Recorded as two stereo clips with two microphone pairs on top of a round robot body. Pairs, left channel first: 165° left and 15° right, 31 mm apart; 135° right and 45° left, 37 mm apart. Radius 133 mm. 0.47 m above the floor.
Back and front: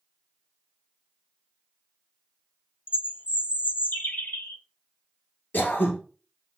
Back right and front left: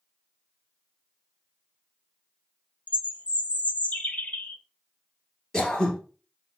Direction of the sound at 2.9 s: 175° left.